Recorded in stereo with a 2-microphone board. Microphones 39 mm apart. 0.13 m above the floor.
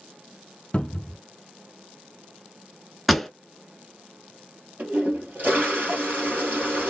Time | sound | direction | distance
0.7 | a cupboard door | 30° left (ahead or behind) | 0.5 m
3.1 | a pop | centre (ahead or behind) | 0.6 m
4.8 | a toilet flushing | 50° right (ahead or behind) | 2.5 m